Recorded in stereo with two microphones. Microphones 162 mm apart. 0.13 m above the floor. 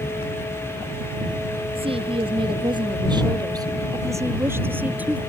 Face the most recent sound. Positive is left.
turn(degrees=-10)  # may be behind; listen again after turning